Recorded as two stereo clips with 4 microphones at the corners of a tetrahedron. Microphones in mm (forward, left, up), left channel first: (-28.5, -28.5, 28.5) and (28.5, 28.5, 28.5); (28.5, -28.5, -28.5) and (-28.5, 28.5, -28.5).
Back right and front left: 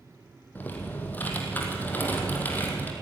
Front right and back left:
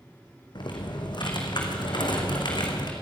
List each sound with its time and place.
0.6 s typing on a keyboard: 65° right, 3.5 m